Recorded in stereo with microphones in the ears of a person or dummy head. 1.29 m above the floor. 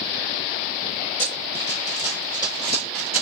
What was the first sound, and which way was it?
Running footsteps, 30° left (ahead or behind).